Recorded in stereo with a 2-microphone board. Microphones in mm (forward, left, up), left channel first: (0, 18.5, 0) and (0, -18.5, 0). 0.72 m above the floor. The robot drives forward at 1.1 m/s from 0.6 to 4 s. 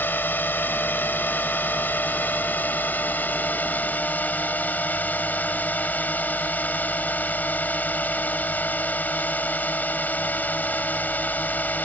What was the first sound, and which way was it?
A drone, 75° left (ahead or behind).